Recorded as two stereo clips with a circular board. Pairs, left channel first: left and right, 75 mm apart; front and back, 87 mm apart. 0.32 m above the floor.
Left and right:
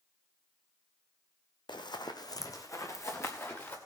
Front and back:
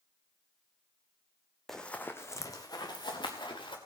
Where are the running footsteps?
90° left, 1.3 m; by 3.8 s 25° left, 3 m.